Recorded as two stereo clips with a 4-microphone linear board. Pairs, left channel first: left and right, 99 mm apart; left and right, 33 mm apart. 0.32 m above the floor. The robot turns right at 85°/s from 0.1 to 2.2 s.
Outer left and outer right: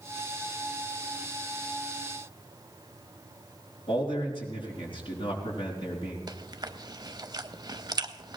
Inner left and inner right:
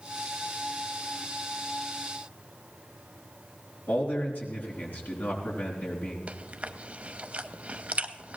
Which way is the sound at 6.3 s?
45° right (ahead or behind).